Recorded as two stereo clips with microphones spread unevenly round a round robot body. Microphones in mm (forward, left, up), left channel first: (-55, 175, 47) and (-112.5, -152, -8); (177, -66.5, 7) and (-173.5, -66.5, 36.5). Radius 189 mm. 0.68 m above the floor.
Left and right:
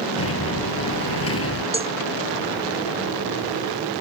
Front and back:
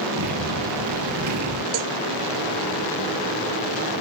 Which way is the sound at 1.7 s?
175° right.